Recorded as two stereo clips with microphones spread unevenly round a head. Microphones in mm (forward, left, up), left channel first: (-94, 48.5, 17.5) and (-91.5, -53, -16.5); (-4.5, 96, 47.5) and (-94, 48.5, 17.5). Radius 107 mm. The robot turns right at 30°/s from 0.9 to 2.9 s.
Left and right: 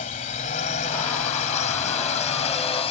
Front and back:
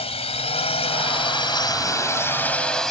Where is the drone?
50° left; by 2.9 s 115° left.